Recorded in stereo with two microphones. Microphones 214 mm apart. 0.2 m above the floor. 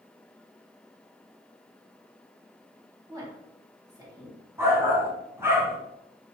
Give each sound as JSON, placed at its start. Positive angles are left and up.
{"t": 3.1, "sound": "a woman speaking", "side_deg": -15, "distance_m": 1.7}
{"t": 4.6, "sound": "a shout", "side_deg": -10, "distance_m": 1.3}